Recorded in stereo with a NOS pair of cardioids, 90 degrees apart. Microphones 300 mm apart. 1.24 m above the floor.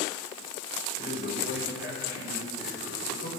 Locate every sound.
1.0 s a man speaking: 40° left, 6 m